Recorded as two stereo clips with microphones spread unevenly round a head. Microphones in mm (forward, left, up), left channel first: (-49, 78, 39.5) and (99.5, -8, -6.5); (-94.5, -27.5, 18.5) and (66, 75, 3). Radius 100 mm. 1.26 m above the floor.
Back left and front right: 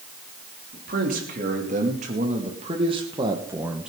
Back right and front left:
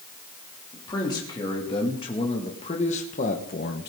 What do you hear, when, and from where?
0.7 s a man speaking: 75° right, 3 m; by 3.9 s 110° right, 1.0 m